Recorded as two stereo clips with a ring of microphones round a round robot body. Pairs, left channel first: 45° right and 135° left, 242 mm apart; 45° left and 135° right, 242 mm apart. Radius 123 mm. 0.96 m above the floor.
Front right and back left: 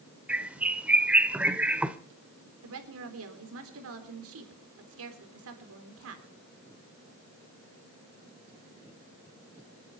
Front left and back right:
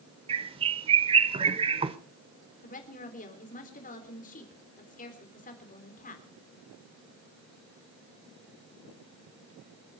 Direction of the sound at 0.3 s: 150° right.